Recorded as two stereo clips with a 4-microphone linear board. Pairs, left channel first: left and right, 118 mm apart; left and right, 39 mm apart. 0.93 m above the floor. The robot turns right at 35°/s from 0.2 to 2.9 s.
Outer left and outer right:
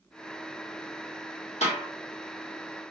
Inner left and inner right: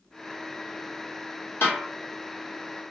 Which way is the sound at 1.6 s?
70° left (ahead or behind).